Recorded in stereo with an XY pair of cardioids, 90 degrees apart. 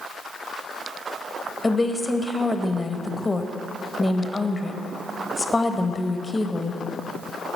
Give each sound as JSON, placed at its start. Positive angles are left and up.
{"t": 1.6, "sound": "a woman speaking", "azimuth_deg": 20, "distance_m": 0.9}